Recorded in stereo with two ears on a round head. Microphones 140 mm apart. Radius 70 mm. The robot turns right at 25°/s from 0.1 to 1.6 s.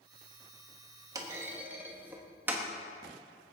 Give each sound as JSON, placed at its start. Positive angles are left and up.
{"t": 1.1, "sound": "a clunk", "side_deg": -20, "distance_m": 1.4}